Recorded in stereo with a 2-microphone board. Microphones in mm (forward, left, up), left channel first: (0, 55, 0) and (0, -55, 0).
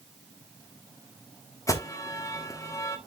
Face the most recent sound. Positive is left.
turn(degrees=30)  # may be behind; listen again after turning